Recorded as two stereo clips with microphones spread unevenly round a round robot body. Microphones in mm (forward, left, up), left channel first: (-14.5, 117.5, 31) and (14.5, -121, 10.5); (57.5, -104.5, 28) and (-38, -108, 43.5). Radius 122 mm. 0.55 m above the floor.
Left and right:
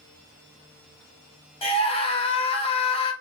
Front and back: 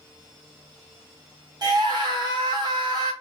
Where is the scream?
155° left, 0.9 m.